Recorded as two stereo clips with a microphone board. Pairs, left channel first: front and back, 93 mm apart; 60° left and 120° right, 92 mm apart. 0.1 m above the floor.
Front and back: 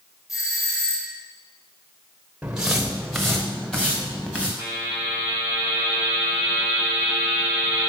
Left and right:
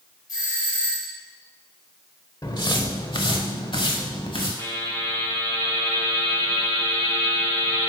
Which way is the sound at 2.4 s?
100° left.